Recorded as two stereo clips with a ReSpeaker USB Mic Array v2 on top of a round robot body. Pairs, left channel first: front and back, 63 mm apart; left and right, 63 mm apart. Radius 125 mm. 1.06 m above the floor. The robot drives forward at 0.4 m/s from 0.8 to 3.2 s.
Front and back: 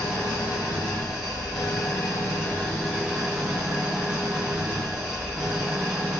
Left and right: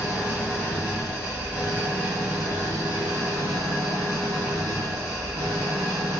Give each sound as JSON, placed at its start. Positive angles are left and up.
{"t": 0.0, "sound": "an engine running", "azimuth_deg": -15, "distance_m": 1.1}